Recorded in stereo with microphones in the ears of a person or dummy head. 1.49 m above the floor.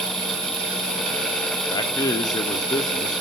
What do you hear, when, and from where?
1.7 s a man speaking: 20° left (ahead or behind), 0.7 m